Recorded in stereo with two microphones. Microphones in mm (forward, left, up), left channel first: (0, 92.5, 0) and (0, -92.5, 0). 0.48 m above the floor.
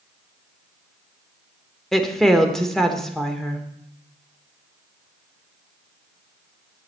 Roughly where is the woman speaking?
Centre.